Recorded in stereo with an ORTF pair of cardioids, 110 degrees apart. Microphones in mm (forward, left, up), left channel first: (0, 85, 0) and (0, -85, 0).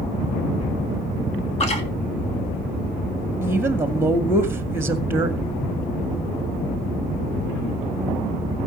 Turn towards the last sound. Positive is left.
turn(degrees=-15)